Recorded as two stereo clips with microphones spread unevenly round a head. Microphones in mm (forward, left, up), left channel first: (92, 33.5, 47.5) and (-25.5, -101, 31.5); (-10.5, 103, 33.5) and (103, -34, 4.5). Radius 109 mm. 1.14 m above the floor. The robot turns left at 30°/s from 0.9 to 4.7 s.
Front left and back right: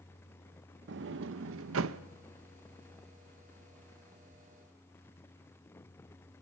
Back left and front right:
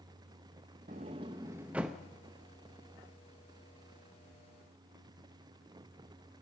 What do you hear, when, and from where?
0.9 s a sliding door: 110° right, 0.6 m; by 2.0 s 145° right, 0.6 m